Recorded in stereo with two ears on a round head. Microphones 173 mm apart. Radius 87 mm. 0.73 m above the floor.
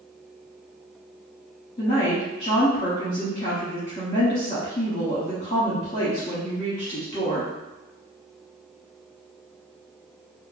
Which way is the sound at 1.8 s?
25° left (ahead or behind).